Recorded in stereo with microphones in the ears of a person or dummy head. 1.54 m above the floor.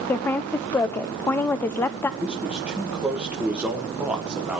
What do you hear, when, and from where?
0.1 s a woman speaking: 15° left (ahead or behind), 0.5 m
2.2 s a man speaking: centre (ahead or behind), 1.6 m